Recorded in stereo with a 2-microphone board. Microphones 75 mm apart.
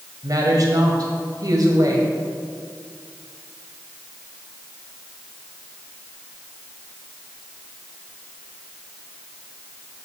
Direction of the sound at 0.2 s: 55° right (ahead or behind).